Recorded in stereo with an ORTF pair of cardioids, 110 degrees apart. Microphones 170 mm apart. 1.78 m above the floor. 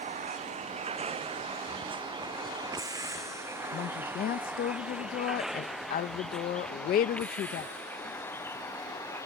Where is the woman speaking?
60° left.